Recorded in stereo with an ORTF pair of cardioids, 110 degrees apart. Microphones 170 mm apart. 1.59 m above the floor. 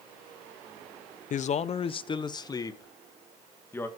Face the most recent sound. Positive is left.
turn(degrees=15)